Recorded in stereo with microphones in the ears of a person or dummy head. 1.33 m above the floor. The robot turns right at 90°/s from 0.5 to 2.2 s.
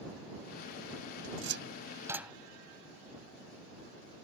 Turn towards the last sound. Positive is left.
turn(degrees=-10)  # may be behind; listen again after turning